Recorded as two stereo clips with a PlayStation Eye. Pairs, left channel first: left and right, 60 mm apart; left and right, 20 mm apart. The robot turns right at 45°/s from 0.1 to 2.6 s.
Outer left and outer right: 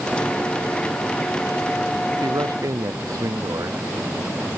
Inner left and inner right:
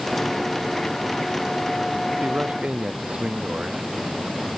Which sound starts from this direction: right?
A man speaking, at 2.2 s.